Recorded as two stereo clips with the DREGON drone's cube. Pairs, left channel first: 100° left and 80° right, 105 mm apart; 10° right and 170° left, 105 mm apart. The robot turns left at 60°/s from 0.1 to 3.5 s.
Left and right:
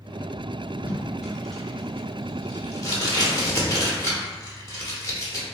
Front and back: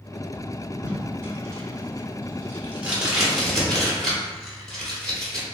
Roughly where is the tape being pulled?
Behind right.